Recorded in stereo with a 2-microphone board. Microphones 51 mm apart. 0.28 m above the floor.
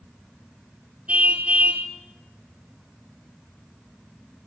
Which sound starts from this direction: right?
A car horn, at 1.1 s.